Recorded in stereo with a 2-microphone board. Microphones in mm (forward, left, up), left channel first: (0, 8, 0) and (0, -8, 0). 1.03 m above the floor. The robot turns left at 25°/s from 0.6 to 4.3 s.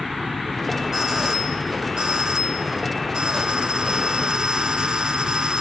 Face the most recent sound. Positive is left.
turn(degrees=-125)